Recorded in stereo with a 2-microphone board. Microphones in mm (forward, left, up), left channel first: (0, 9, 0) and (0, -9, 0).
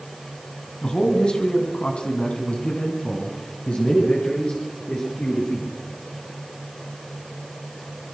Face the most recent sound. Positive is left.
turn(degrees=65)  # may be behind; listen again after turning